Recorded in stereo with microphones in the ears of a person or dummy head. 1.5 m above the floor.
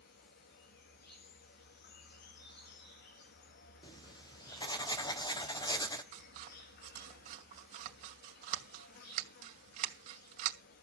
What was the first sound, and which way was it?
An insect, 55° left (ahead or behind).